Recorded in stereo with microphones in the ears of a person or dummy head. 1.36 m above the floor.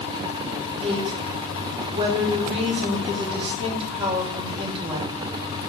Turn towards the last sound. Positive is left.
turn(degrees=-30)  # may be behind; listen again after turning